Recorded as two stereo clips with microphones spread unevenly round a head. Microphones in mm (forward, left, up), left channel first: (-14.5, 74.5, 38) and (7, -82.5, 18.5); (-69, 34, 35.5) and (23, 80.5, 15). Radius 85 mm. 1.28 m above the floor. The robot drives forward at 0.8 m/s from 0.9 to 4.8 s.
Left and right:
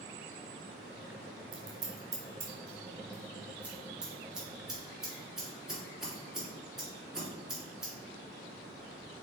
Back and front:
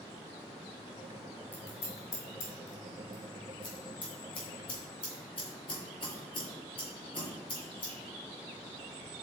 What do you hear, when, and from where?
1.5 s scissors: 130° right, 1.1 m; by 7.9 s 170° right, 3 m